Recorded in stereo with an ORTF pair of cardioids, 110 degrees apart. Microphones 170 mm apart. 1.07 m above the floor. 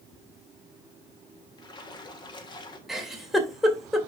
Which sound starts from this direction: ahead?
A giggle, at 2.9 s.